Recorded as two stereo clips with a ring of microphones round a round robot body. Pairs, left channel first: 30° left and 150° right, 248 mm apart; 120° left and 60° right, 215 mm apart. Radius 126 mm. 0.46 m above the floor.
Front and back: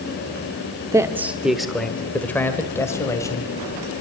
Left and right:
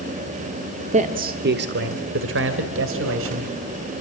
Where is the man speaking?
85° right, 1.2 m; by 3.9 s 45° right, 3.5 m.